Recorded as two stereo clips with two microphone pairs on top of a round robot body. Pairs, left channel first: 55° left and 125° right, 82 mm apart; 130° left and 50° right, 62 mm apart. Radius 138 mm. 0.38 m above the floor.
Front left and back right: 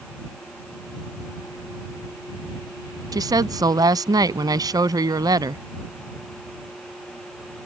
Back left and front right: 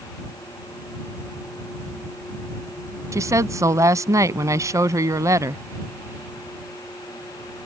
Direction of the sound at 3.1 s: 85° right.